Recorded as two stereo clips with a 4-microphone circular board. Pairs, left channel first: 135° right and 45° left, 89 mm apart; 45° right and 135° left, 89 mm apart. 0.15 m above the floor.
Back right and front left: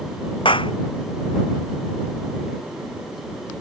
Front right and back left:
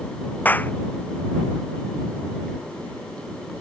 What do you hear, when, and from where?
0.5 s a clap: 115° right